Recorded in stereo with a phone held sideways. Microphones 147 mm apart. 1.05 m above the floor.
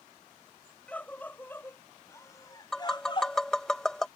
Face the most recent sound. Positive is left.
turn(degrees=5)  # may be behind; listen again after turning